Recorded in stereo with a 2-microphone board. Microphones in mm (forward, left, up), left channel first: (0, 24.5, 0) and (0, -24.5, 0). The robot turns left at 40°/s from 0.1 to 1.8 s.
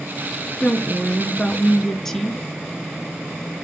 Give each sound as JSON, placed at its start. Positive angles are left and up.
{"t": 0.6, "sound": "a woman speaking", "side_deg": 25, "distance_m": 1.1}